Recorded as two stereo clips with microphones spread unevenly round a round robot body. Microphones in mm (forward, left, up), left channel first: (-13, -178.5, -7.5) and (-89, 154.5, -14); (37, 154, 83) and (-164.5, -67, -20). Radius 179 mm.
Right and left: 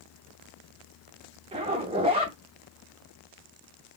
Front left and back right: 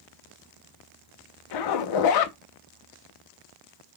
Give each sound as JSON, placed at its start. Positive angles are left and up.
{"t": 1.5, "sound": "a zipper", "azimuth_deg": 30, "distance_m": 0.7}